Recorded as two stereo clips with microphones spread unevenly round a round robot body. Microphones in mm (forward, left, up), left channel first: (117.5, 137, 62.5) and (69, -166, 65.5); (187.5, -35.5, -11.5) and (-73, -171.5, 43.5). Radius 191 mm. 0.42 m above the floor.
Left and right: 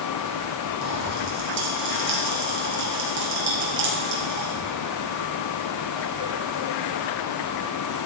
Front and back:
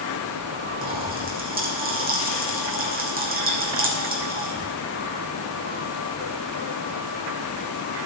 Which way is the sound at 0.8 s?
95° right.